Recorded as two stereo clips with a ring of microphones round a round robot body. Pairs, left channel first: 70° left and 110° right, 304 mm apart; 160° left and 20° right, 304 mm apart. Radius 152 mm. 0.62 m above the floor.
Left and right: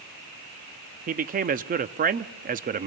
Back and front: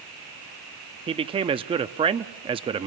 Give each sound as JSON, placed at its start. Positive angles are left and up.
{"t": 1.1, "sound": "a man speaking", "azimuth_deg": -80, "distance_m": 0.6}